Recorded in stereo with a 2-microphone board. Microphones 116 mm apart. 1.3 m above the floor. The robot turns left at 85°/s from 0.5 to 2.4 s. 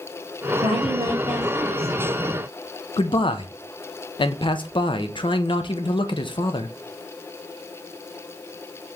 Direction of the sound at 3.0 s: 45° left (ahead or behind).